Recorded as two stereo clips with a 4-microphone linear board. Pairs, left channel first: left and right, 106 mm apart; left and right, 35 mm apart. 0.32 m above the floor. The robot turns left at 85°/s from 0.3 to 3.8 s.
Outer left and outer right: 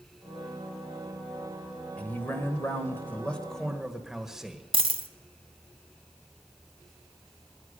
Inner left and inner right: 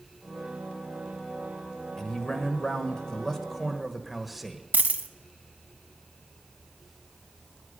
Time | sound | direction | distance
2.0 | a man speaking | 10° left (ahead or behind) | 1.2 m
4.7 | a dropped coin | 55° right (ahead or behind) | 0.7 m